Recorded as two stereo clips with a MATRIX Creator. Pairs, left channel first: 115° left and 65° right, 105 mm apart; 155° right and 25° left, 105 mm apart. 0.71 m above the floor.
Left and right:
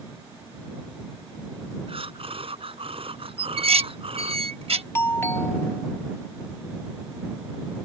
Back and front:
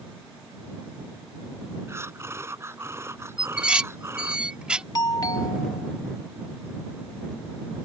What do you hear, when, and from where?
1.9 s breathing: 40° right
3.4 s dishes clattering: 55° right
5.0 s a doorbell: 170° left